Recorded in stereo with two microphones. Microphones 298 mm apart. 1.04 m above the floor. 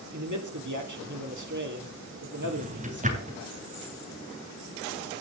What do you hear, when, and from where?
0.1 s a man speaking: 75° right (ahead or behind), 3.5 m
2.4 s a drawer: 25° right (ahead or behind), 3 m